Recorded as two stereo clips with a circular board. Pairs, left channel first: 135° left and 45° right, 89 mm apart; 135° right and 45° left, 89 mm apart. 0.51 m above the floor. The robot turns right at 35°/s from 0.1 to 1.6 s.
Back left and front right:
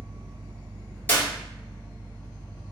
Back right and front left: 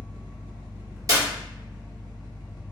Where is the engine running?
40° right, 1.7 m; by 2.7 s 10° left, 1.7 m.